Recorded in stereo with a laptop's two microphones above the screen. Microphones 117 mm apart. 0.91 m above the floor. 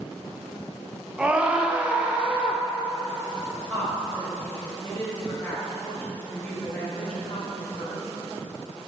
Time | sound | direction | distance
1.2 | a scream | 10° right (ahead or behind) | 0.5 m
3.7 | a woman speaking | 15° left (ahead or behind) | 0.9 m